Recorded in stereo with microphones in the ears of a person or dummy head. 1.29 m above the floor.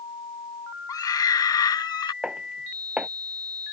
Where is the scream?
20° left (ahead or behind); by 2.1 s 25° left (ahead or behind).